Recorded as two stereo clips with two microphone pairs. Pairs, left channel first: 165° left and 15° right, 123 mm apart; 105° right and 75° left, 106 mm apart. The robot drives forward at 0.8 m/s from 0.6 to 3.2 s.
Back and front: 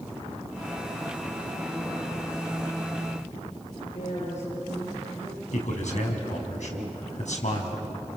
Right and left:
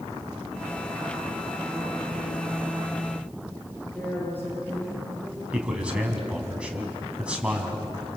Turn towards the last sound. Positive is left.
turn(degrees=155)